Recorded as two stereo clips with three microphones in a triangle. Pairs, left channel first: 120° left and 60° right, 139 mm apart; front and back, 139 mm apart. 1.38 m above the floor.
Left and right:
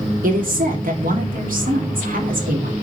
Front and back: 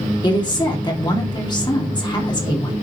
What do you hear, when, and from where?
0.2 s a woman speaking: 60° right, 2.5 m